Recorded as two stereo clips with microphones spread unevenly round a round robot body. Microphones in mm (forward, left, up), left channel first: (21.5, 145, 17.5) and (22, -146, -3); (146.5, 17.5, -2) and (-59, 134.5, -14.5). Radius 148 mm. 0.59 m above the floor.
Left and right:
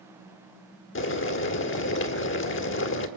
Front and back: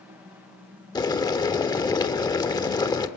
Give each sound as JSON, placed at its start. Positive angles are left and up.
{"t": 0.9, "sound": "boiling", "azimuth_deg": 45, "distance_m": 1.8}